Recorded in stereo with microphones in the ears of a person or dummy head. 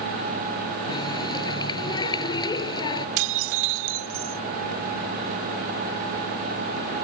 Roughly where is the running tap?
Left.